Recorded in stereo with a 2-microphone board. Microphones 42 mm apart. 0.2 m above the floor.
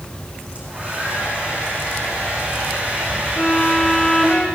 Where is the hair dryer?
35° right (ahead or behind), 8.5 m.